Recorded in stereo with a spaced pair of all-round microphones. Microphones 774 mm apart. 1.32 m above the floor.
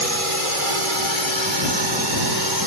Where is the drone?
45° right (ahead or behind); by 2.7 s 25° right (ahead or behind).